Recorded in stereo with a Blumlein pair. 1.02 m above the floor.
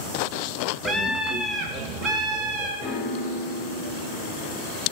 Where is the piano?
25° left, 0.7 m.